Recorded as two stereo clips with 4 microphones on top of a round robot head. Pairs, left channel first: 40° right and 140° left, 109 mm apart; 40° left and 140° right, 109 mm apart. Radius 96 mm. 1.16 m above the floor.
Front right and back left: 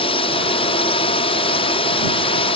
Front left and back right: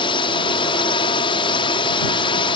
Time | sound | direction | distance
0.0 | a drone | 5° right | ?